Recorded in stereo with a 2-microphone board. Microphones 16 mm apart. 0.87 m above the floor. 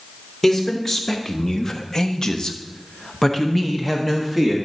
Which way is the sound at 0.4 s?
40° left (ahead or behind).